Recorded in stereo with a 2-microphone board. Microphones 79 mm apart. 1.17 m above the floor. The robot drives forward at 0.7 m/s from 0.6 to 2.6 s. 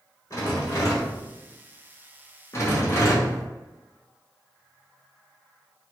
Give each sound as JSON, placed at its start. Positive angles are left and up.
{"t": 0.3, "sound": "a rattle", "side_deg": 40, "distance_m": 1.2}
{"t": 2.5, "sound": "a rattle", "side_deg": 35, "distance_m": 0.8}